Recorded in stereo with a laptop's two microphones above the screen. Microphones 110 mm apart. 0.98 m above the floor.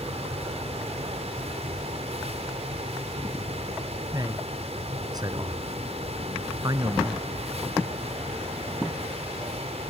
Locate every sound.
0.0 s a fan: 75° right (ahead or behind)
4.1 s a man speaking: 35° right (ahead or behind)